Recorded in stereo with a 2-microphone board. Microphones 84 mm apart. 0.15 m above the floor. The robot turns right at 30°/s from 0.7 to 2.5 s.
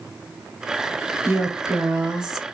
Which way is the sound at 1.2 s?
40° right.